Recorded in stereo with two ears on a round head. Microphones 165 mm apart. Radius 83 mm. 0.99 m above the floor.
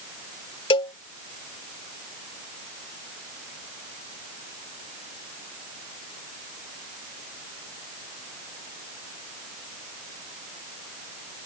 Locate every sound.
0.7 s a cowbell: 30° left (ahead or behind)